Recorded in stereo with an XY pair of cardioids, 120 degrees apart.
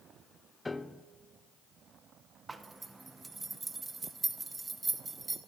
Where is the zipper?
15° right, 0.9 m.